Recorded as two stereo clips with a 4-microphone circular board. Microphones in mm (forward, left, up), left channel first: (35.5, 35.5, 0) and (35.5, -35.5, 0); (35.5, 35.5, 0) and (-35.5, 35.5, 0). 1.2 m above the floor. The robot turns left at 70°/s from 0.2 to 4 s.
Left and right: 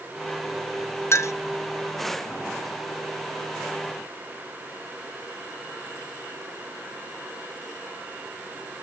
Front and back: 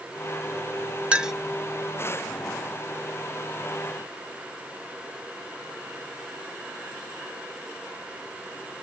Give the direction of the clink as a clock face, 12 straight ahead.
8 o'clock.